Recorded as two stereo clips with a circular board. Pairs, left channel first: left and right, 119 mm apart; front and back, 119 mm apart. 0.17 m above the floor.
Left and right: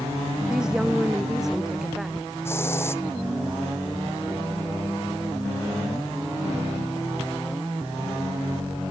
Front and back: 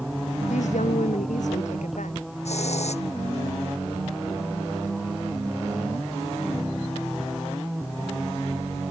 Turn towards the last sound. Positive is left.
turn(degrees=20)